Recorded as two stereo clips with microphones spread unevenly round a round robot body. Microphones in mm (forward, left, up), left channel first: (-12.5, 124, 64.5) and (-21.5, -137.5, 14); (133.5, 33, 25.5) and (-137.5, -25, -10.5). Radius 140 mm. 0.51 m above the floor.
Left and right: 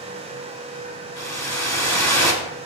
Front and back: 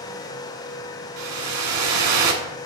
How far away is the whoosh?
About 1.8 m.